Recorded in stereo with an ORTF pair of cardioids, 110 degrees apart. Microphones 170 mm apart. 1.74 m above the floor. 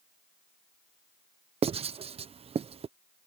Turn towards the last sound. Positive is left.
turn(degrees=-35)